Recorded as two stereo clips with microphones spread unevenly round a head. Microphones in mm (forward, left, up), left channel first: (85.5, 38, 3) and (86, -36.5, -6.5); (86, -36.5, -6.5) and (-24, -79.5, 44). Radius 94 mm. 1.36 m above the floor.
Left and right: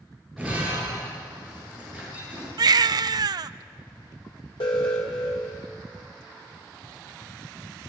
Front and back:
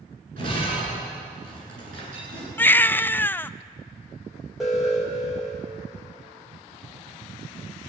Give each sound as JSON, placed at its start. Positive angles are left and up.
{"t": 0.4, "sound": "breaking glass", "azimuth_deg": 180, "distance_m": 10.0}
{"t": 2.6, "sound": "a baby crying", "azimuth_deg": -65, "distance_m": 0.5}
{"t": 4.6, "sound": "an alarm", "azimuth_deg": 105, "distance_m": 3.5}